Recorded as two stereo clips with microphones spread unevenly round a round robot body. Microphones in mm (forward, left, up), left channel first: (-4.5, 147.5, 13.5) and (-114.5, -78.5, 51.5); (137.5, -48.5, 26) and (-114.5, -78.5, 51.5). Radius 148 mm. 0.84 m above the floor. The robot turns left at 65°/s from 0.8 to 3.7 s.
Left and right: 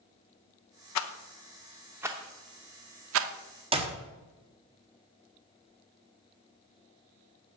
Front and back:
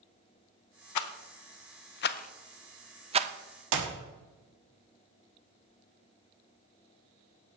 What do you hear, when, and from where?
0.9 s a rattle: 30° left, 0.5 m; by 3.3 s 120° right, 0.5 m
3.7 s a clap: 175° left, 1.4 m